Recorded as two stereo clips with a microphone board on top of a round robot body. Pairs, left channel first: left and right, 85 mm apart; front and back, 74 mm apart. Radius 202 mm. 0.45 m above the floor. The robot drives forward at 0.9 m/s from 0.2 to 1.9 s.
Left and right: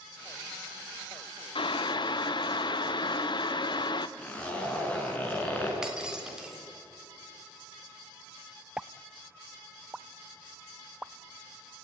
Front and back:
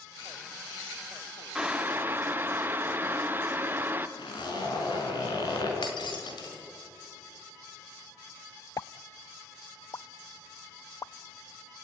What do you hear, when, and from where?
1.6 s boiling: 100° left, 0.9 m; by 4.1 s 115° left, 1.0 m
4.2 s a zipper: 15° left, 5 m
5.8 s breaking glass: 10° right, 3.5 m
8.8 s a pop: 15° right, 0.5 m